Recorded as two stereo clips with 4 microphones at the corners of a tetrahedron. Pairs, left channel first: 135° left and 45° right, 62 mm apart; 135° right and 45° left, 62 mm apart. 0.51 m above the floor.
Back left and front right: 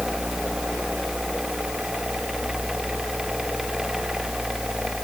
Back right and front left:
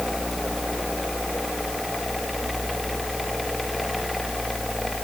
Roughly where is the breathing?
I don't hear breathing.